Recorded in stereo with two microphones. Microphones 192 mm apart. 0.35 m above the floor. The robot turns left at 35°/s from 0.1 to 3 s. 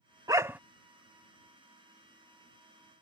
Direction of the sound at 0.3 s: 20° right (ahead or behind).